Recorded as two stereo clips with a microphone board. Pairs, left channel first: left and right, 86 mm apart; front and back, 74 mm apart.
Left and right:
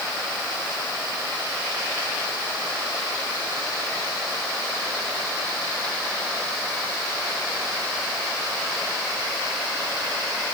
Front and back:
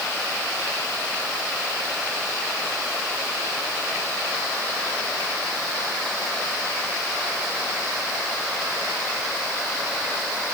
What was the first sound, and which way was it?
Only background noise.